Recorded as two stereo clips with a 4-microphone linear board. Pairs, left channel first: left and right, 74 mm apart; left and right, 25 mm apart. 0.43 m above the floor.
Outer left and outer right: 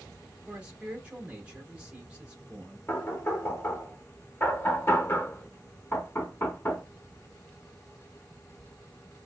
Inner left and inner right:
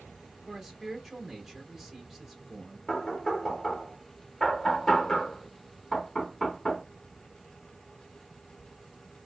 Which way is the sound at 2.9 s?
30° left (ahead or behind).